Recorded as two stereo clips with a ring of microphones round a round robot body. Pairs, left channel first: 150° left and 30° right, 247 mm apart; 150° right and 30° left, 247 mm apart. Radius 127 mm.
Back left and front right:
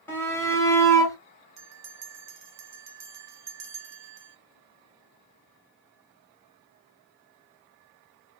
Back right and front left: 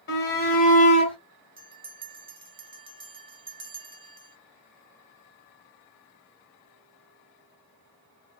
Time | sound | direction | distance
0.1 | a shout | 135° right | 2 m
1.6 | a bell | 40° right | 1.2 m